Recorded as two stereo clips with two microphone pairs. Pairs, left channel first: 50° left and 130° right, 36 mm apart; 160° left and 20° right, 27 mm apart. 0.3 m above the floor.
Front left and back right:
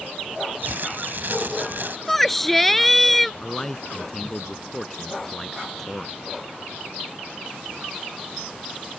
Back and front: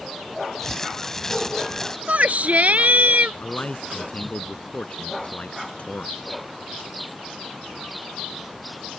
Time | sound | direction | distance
0.6 | crumpling | 125° right | ?
2.1 | a shout | 35° right | ?
3.4 | a man speaking | 130° left | ?